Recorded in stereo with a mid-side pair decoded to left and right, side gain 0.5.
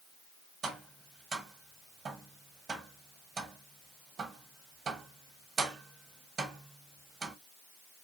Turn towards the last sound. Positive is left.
turn(degrees=-50)